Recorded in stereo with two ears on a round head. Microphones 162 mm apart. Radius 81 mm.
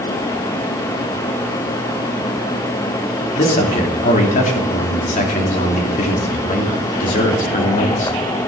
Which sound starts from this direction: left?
A man speaking, at 3.4 s.